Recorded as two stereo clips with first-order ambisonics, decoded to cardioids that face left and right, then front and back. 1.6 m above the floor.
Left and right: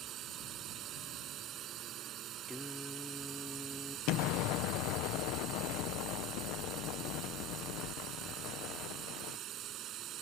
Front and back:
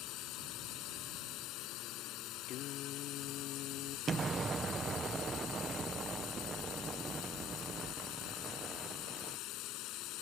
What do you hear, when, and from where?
0.0 s a drone: 40° right
2.5 s singing: 5° left
4.1 s an explosion: 110° left